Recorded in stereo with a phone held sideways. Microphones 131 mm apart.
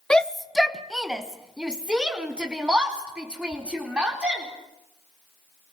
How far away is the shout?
About 0.7 m.